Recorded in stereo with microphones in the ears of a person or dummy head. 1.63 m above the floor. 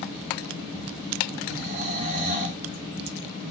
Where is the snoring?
45° right (ahead or behind), 1.6 m.